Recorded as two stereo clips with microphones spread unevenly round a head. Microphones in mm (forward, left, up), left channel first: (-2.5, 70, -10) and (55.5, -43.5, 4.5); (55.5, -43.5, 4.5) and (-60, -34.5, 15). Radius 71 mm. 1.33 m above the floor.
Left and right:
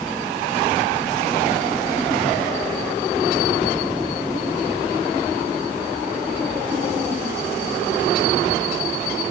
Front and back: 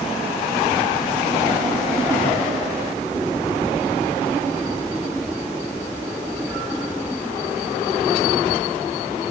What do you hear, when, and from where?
Only background noise.